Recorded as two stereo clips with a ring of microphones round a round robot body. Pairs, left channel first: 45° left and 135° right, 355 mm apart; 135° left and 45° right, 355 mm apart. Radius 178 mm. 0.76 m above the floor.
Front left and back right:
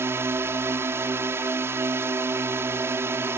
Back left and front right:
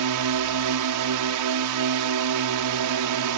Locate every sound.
0.0 s a drone: 55° right